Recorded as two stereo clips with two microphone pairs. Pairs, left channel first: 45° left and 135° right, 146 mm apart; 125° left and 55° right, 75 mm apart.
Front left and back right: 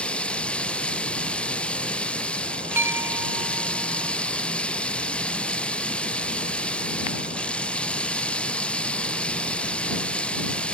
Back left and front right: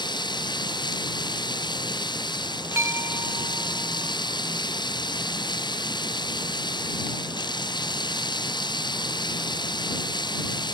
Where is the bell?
70° right.